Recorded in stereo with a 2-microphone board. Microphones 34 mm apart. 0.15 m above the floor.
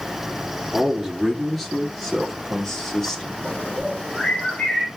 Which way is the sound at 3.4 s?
40° left (ahead or behind).